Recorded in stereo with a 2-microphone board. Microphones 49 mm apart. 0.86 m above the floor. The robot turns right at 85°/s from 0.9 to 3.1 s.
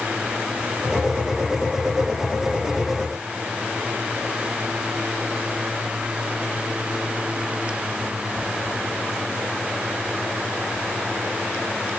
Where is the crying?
No crying in this recording.